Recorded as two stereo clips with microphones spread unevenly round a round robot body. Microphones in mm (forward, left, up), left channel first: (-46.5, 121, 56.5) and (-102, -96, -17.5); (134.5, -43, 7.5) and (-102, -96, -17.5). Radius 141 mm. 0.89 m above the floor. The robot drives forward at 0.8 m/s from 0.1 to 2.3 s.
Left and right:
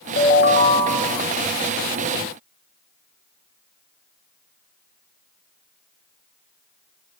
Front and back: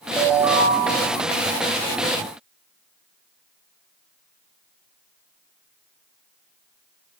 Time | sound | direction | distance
0.2 | a ringtone | 90° left | 0.6 m